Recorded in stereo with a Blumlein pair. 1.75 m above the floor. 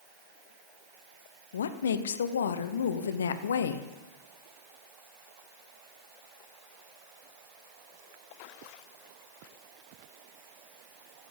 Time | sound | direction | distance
1.5 | a woman speaking | 65° left | 1.0 m